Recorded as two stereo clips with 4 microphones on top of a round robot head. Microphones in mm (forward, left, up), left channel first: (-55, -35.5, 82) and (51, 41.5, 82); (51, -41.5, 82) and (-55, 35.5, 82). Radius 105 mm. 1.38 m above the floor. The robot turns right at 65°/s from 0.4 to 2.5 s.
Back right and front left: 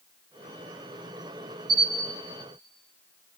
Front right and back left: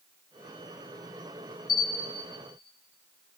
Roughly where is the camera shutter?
Ahead.